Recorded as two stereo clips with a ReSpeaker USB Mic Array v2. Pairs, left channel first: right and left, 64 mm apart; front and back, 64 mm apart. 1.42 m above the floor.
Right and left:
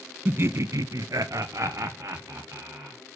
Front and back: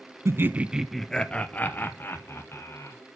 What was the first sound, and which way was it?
Laughter, 145° left.